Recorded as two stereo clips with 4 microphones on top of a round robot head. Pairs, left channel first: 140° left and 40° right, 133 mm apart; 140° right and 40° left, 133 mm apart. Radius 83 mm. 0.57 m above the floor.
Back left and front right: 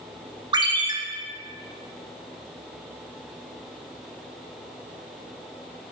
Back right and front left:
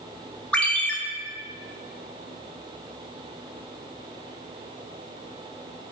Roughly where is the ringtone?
Ahead right.